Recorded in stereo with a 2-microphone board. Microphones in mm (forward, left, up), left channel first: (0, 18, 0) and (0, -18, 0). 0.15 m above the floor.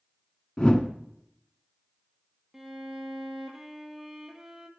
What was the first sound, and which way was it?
A whoosh, 30° left (ahead or behind).